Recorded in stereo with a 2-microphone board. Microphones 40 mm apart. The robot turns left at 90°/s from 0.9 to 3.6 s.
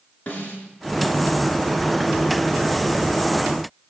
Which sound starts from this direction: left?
A snare drum, at 0.3 s.